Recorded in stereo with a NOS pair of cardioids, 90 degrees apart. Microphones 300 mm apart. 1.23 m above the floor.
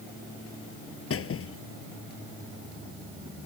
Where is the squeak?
45° left.